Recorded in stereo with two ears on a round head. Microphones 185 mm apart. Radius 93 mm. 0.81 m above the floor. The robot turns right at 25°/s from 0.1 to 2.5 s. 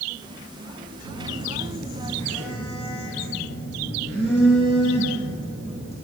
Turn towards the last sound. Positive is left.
turn(degrees=-5)